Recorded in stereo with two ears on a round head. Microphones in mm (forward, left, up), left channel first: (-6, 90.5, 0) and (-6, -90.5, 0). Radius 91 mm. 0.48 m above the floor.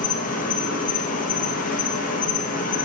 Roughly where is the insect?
Left.